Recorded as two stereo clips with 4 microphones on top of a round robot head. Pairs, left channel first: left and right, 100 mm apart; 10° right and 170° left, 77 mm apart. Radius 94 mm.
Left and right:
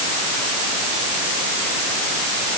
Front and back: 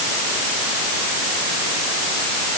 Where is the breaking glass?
I don't hear breaking glass.